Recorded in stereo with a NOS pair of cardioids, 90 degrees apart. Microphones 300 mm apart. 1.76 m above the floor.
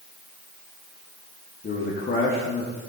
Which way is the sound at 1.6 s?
35° left.